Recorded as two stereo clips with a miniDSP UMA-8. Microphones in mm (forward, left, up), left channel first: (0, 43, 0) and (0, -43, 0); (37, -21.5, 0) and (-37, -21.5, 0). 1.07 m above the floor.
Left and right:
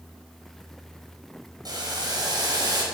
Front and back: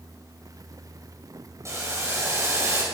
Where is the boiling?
130° right, 5 m.